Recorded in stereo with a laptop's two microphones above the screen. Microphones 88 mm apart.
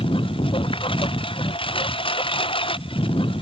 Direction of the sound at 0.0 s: 85° left.